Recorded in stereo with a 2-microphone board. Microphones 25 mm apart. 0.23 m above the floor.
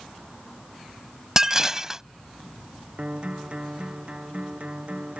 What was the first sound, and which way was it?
Dishes clattering, 20° right (ahead or behind).